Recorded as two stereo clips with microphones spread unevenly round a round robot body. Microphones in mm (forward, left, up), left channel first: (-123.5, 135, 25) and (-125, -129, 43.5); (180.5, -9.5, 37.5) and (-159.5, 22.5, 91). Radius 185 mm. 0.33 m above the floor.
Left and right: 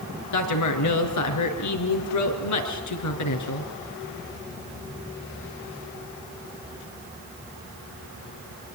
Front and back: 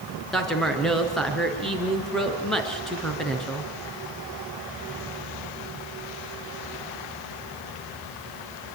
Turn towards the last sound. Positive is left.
turn(degrees=80)